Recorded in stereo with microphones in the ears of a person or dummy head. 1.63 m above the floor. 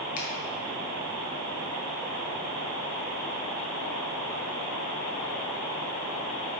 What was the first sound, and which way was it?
A finger snap, 45° left (ahead or behind).